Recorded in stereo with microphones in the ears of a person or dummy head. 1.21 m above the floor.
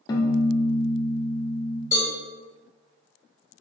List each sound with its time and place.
0.1 s a piano: 30° left (ahead or behind), 0.6 m
1.9 s a cowbell: 20° left (ahead or behind), 1.7 m